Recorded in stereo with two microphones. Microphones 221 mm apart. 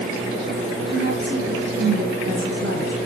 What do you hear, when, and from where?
0.9 s a woman speaking: 55° right (ahead or behind), 3.5 m